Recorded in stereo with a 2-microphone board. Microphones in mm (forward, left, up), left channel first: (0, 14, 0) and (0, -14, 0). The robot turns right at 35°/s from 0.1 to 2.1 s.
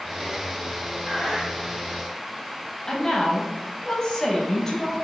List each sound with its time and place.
1.1 s breathing: 10° left (ahead or behind), 2 m; by 1.5 s centre (ahead or behind), 2 m
2.9 s a woman speaking: 25° left (ahead or behind), 1.1 m